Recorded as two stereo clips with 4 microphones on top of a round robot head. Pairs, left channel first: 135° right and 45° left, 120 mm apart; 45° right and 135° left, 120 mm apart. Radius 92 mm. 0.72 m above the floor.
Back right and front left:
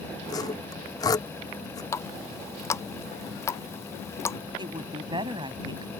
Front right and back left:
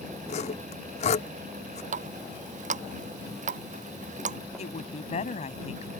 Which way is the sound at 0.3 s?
75° right.